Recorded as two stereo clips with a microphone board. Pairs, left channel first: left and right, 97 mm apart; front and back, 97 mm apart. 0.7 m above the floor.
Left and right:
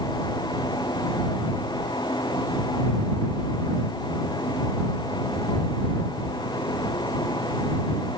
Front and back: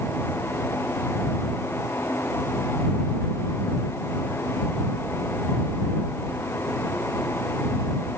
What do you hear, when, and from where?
Only background noise.